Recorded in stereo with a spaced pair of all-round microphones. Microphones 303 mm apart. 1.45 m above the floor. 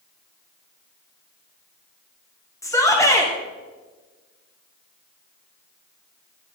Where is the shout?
10° left (ahead or behind), 1.1 m.